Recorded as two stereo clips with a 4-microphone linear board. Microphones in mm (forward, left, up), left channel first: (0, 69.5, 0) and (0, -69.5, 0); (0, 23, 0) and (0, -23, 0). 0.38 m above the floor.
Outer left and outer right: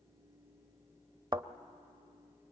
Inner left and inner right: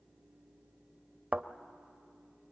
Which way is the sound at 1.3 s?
30° right (ahead or behind).